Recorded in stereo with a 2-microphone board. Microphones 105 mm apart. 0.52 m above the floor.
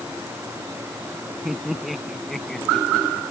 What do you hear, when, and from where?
1.4 s laughter: 5° right (ahead or behind); by 3.2 s 10° left (ahead or behind)